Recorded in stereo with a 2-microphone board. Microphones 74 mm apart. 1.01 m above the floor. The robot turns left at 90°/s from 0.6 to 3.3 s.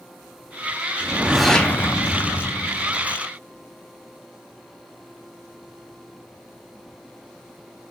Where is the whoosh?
140° right, 0.7 m; by 3.2 s 25° left, 0.7 m.